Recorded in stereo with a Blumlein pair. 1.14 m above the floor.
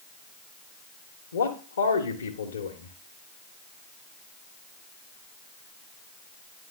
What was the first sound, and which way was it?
A man speaking, 65° left.